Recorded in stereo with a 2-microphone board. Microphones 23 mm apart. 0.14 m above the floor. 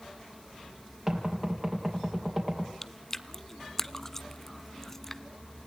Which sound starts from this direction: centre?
Chewing, at 2.8 s.